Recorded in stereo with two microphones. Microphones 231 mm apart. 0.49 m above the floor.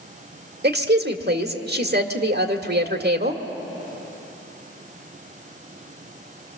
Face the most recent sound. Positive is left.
turn(degrees=-45)  # may be behind; listen again after turning